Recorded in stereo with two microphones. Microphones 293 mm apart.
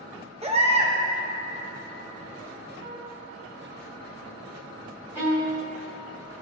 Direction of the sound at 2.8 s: 25° left (ahead or behind).